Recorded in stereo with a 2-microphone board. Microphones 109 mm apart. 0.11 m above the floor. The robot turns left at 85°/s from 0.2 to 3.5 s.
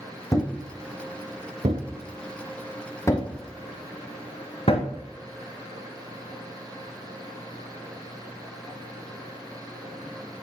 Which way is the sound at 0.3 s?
30° left (ahead or behind).